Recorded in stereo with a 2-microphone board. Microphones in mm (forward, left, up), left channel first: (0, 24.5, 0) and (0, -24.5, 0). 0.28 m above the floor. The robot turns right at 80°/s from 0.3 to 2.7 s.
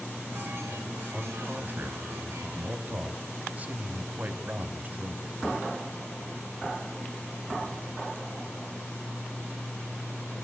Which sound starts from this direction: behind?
A man speaking, at 1.1 s.